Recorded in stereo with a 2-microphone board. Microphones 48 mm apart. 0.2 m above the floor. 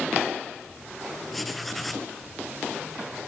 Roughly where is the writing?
Centre.